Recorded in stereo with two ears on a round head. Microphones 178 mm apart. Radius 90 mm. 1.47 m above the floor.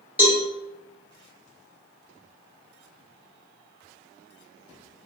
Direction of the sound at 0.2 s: 10° right (ahead or behind).